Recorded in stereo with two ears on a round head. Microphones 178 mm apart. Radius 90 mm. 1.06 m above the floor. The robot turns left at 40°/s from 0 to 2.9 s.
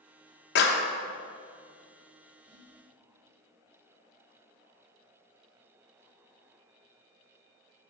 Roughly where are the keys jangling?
I don't hear keys jangling.